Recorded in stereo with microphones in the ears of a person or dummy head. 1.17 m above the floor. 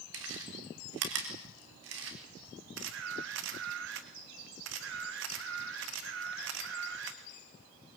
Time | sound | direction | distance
0.1 | chewing | 70° right (ahead or behind) | 4 m
2.8 | a camera shutter | 65° right (ahead or behind) | 1.8 m